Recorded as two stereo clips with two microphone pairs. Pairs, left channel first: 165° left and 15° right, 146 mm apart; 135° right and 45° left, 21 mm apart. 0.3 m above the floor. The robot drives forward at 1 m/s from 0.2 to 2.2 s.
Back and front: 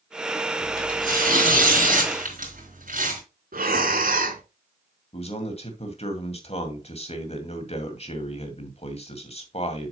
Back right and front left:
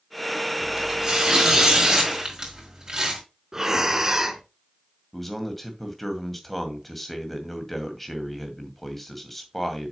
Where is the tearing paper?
5° right, 5.5 m; by 3.2 s 10° right, 4 m.